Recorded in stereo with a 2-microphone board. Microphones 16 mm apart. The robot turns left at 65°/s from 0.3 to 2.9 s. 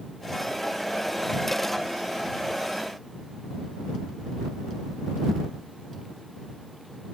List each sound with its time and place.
Only background noise.